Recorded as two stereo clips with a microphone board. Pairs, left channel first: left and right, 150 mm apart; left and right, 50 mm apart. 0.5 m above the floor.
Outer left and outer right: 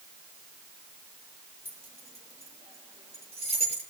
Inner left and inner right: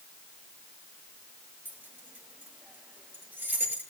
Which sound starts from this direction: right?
Keys jangling, at 1.6 s.